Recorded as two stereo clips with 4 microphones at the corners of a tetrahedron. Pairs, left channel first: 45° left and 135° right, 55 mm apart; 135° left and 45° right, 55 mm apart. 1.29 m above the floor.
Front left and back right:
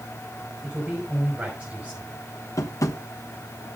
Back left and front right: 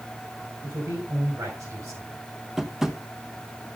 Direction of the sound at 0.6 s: 65° right.